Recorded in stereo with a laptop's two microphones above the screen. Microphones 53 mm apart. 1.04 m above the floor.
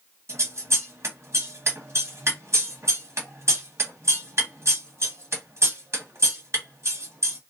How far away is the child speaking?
No child speaking in this recording.